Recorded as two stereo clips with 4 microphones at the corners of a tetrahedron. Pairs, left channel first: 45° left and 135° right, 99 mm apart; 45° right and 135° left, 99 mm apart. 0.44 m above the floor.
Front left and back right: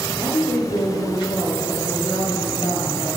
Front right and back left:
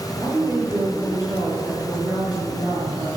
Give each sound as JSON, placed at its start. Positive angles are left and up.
{"t": 0.2, "sound": "a woman speaking", "azimuth_deg": 75, "distance_m": 6.5}